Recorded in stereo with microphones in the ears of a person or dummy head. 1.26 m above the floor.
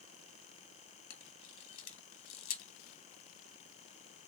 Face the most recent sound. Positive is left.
turn(degrees=70)  # may be behind; listen again after turning